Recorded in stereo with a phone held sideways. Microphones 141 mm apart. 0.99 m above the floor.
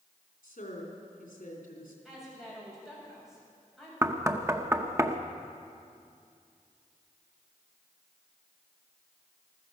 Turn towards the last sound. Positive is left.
turn(degrees=-20)  # may be behind; listen again after turning